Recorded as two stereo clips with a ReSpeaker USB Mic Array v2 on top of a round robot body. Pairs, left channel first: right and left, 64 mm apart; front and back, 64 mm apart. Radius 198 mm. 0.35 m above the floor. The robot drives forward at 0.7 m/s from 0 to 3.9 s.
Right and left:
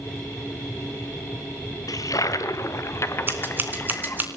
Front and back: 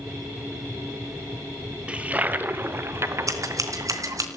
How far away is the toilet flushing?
About 1.4 m.